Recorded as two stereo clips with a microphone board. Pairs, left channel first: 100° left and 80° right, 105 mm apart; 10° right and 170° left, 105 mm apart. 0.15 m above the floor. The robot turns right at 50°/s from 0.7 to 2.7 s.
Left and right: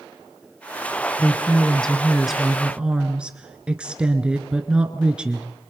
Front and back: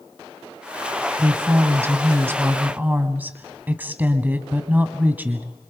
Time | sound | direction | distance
1.2 | a woman speaking | 140° left | 1.3 m